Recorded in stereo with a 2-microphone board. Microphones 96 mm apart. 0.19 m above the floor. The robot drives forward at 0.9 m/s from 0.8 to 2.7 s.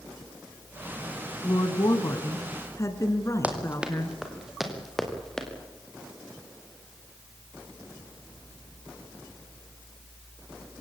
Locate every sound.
1.4 s a woman speaking: 45° left (ahead or behind), 1.7 m; by 4.2 s 35° left (ahead or behind), 2 m
3.4 s running footsteps: 15° right (ahead or behind), 4 m; by 5.5 s 5° left (ahead or behind), 5 m